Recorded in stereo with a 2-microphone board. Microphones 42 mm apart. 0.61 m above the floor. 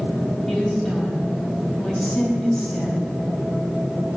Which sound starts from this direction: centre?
A woman speaking, at 0.5 s.